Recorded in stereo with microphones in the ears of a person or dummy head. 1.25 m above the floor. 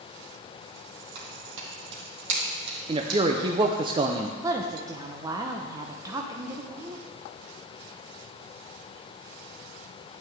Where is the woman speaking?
20° right (ahead or behind), 0.8 m.